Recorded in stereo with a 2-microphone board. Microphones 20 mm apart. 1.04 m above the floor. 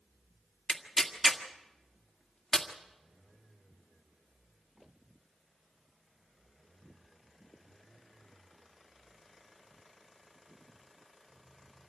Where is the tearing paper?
20° left (ahead or behind), 1.7 m.